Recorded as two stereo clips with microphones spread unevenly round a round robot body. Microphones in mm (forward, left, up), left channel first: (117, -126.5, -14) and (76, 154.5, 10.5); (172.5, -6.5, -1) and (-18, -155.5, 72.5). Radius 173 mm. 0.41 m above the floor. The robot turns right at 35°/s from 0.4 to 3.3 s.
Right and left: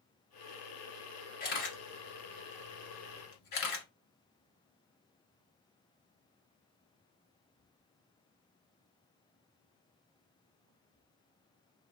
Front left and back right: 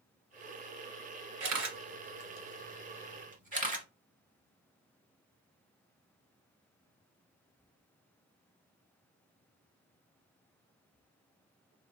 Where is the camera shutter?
150° right, 1.6 m; by 3.9 s 85° right, 1.6 m.